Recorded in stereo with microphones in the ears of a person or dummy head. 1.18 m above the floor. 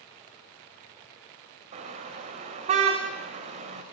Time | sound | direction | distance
1.7 | a car horn | 50° right (ahead or behind) | 2.5 m